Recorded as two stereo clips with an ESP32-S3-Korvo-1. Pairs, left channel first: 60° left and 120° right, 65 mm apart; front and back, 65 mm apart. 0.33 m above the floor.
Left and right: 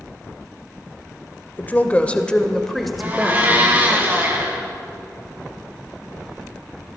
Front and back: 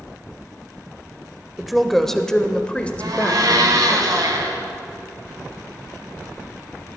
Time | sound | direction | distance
1.6 | a woman speaking | 95° left | 0.9 m
3.0 | a blender | straight behind | 2.5 m